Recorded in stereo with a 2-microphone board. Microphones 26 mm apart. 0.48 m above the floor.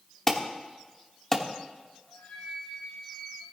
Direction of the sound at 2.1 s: 85° left.